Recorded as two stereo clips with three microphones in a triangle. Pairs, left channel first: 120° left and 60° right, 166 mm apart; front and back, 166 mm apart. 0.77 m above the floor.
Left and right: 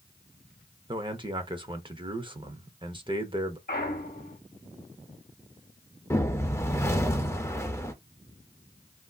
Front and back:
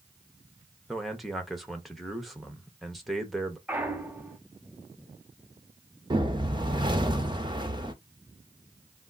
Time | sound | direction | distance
0.9 | a man speaking | 90° right | 0.7 m
3.7 | a clunk | 100° left | 0.8 m
6.1 | a whoosh | 175° left | 0.6 m